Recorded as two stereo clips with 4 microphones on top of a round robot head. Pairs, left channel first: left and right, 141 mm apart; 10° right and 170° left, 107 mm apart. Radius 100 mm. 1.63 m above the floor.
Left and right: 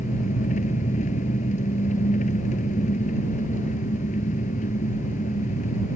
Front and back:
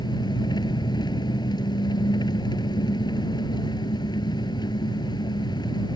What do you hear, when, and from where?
0.0 s an engine running: 40° left